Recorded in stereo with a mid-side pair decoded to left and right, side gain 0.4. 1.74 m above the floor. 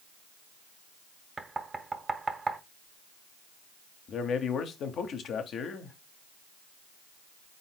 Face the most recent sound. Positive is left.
turn(degrees=65)